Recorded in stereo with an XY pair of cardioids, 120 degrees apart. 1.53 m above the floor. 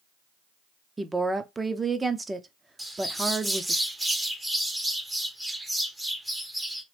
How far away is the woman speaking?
About 0.5 m.